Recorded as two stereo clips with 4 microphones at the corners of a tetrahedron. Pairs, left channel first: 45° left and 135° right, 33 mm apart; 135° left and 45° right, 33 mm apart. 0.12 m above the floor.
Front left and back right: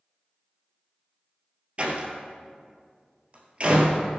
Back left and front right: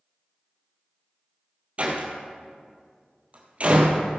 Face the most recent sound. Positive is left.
turn(degrees=-90)